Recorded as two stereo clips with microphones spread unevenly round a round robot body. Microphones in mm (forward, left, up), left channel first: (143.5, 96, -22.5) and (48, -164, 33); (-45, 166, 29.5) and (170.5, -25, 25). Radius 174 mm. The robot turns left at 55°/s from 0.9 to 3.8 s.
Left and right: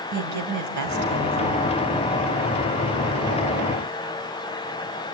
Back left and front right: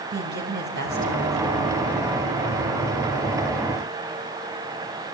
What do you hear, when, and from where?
0.1 s a woman speaking: 95° right, 3 m; by 1.8 s 145° right, 3 m